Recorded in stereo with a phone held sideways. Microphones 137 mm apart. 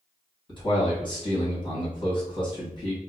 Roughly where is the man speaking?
Left.